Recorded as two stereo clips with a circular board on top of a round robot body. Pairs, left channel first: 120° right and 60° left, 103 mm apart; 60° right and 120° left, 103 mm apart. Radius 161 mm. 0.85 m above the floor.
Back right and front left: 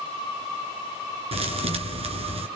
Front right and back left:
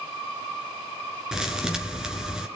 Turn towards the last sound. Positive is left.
turn(degrees=35)